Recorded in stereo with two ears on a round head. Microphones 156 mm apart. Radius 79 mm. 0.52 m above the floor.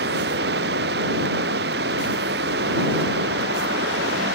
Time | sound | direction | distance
0.0 | running water | 60° right (ahead or behind) | ?